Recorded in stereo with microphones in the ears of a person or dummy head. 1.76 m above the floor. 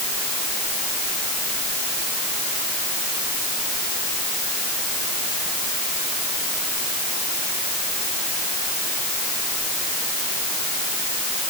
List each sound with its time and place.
Only background noise.